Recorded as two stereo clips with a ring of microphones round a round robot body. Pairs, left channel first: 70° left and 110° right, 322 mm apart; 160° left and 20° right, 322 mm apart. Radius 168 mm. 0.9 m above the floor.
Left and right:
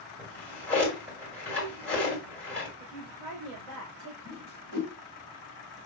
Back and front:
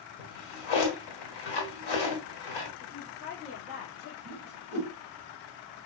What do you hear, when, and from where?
0.2 s a drawer: 155° left, 1.7 m
2.8 s a woman speaking: 105° right, 2.5 m
4.2 s a whoosh: 80° right, 2 m